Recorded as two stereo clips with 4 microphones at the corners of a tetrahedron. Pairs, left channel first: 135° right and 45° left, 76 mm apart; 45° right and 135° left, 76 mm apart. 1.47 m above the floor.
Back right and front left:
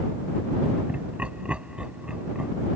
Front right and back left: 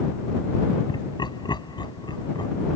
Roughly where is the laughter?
Ahead right.